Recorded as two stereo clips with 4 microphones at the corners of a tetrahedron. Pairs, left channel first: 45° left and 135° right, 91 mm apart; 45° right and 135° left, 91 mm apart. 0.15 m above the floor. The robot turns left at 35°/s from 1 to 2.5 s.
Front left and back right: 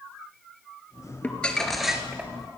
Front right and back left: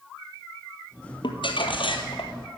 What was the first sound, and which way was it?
Crumpling, 25° right.